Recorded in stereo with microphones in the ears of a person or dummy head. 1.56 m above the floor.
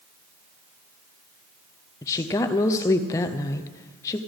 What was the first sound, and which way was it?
A woman speaking, 15° left (ahead or behind).